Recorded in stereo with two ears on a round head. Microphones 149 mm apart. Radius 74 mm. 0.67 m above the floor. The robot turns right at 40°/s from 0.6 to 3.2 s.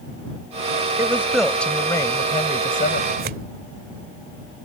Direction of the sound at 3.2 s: 60° right (ahead or behind).